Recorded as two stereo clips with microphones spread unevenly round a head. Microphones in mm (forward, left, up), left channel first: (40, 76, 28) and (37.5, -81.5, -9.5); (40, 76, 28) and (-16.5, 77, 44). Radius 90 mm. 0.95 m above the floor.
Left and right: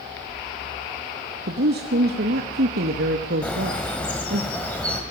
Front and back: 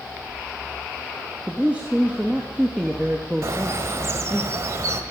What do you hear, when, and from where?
1.5 s a woman speaking: 100° right, 0.9 m
3.4 s a bird: 165° left, 1.3 m